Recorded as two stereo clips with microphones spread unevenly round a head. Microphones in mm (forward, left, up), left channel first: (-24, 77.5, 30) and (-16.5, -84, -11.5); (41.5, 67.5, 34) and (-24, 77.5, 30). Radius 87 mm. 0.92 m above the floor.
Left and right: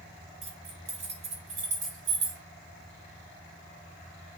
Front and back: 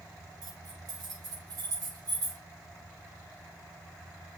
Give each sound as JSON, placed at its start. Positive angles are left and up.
{"t": 0.4, "sound": "keys jangling", "azimuth_deg": -145, "distance_m": 3.0}